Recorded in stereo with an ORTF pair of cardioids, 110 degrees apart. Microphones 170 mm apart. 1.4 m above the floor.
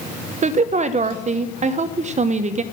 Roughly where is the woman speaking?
Ahead right.